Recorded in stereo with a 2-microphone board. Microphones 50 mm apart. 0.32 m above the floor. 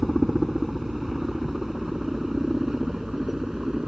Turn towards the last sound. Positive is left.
turn(degrees=-10)  # may be behind; listen again after turning